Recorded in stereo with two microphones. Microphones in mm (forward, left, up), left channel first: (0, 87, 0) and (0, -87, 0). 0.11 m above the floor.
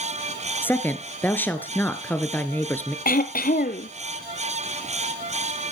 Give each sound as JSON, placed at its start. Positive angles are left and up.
{"t": 0.6, "sound": "a woman speaking", "side_deg": 10, "distance_m": 1.4}
{"t": 3.0, "sound": "throat clearing", "side_deg": 55, "distance_m": 0.9}